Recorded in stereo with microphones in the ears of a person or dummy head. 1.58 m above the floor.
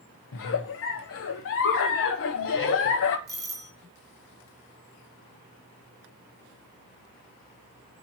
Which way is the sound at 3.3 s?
20° right (ahead or behind).